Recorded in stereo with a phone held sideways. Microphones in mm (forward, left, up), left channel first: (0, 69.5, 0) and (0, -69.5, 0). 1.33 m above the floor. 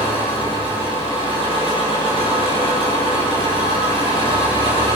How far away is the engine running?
About 9 m.